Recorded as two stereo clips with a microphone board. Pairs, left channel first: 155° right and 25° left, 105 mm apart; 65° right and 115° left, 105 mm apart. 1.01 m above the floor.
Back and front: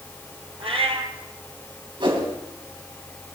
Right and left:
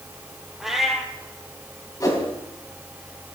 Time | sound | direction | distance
0.6 | a cat meowing | 25° left | 2 m
2.0 | a whoosh | 15° right | 3 m